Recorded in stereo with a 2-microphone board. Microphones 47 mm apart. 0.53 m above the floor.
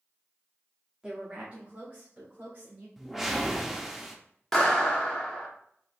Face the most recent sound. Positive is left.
turn(degrees=10)  # may be behind; listen again after turning